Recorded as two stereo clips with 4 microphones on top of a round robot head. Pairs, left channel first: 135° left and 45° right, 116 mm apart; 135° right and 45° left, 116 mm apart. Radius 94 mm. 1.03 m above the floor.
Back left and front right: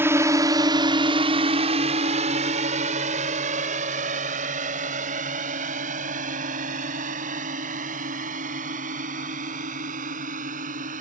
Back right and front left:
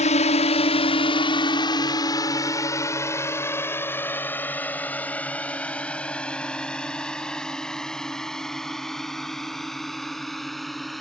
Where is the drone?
115° right; by 11.0 s 45° right.